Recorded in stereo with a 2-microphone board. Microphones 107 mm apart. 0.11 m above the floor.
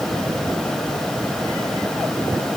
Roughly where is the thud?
No thud in this recording.